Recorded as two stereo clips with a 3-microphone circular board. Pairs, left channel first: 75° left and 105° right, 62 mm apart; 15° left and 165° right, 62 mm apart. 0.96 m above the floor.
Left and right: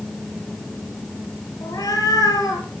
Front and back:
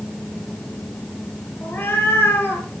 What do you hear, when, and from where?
1.6 s a cat meowing: 70° left, 3.5 m